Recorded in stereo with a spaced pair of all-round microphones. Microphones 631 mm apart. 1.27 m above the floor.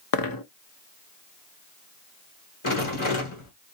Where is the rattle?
50° left (ahead or behind), 1.4 m.